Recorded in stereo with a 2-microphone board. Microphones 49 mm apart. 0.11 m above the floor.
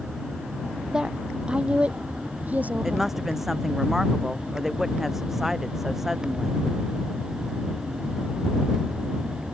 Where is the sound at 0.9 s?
15° right (ahead or behind); by 3.1 s 35° right (ahead or behind).